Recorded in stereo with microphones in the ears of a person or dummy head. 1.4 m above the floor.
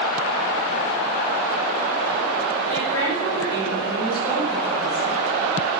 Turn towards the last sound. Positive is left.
turn(degrees=85)